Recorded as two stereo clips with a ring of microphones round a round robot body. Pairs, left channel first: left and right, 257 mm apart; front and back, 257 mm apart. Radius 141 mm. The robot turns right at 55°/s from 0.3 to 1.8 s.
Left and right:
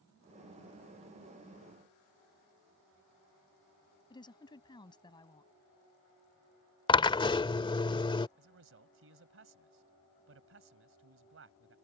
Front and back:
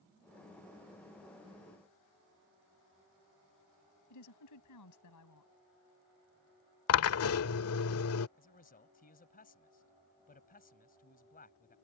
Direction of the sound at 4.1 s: 20° left.